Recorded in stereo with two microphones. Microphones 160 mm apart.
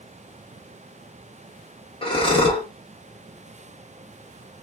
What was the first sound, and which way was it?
Breathing, 35° left (ahead or behind).